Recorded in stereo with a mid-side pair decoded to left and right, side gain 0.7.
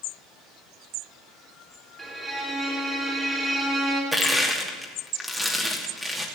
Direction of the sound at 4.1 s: Straight ahead.